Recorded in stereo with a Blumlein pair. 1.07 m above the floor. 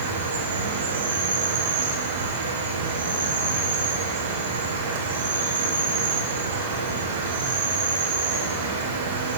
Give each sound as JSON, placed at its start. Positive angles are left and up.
{"t": 0.0, "sound": "an insect", "azimuth_deg": -65, "distance_m": 1.4}